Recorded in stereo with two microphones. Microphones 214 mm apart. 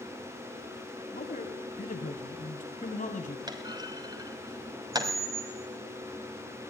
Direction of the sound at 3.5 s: 20° right (ahead or behind).